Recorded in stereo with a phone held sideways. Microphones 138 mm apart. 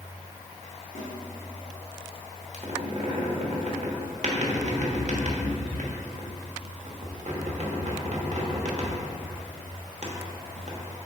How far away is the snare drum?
About 2 m.